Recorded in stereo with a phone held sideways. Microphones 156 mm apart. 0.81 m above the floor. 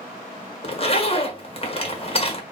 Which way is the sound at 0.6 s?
40° left (ahead or behind).